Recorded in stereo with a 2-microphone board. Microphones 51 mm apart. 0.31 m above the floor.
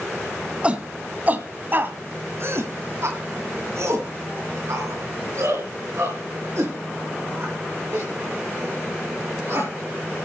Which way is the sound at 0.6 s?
20° right (ahead or behind).